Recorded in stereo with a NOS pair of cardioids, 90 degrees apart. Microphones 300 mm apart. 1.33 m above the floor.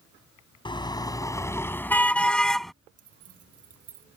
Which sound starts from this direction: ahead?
A car horn, at 0.7 s.